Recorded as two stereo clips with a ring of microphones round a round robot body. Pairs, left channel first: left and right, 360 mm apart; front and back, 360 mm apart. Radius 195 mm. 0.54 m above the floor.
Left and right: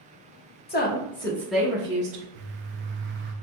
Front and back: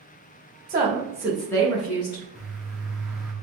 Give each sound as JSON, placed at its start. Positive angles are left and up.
{"t": 0.7, "sound": "a woman speaking", "azimuth_deg": 130, "distance_m": 1.0}
{"t": 2.4, "sound": "a bird", "azimuth_deg": -95, "distance_m": 0.7}